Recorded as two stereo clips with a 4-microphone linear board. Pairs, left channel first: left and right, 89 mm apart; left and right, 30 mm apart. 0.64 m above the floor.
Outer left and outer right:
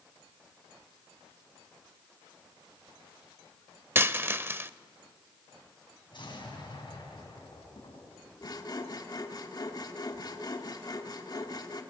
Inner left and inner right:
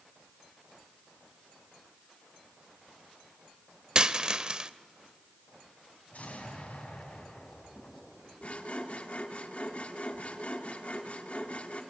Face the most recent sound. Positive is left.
turn(degrees=50)  # may be behind; listen again after turning